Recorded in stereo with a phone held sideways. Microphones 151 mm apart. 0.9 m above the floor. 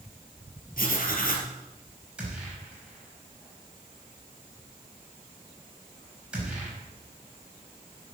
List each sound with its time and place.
0.8 s writing: 70° left (ahead or behind), 3.5 m
2.2 s a gunshot: 5° right (ahead or behind), 6 m